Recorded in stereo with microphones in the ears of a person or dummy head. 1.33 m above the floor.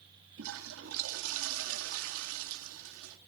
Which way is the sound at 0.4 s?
80° right.